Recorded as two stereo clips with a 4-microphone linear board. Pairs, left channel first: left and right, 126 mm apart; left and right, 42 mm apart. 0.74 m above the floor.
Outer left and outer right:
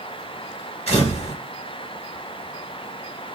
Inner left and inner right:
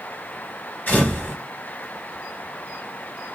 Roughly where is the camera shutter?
Left.